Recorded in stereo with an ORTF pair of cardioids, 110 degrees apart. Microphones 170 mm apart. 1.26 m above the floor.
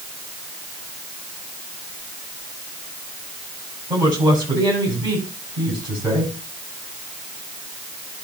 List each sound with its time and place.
3.9 s a woman speaking: 25° right, 8 m